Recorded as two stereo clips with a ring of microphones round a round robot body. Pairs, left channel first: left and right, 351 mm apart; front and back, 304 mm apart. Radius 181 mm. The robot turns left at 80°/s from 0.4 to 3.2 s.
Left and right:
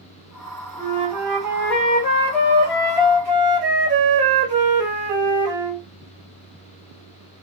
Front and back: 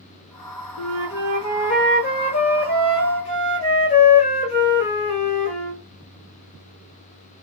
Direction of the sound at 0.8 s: 130° left.